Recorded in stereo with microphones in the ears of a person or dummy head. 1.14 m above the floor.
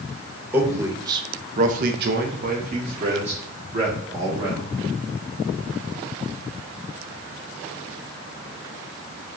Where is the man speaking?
10° right (ahead or behind), 1.0 m; by 4.7 s 25° right (ahead or behind), 1.9 m.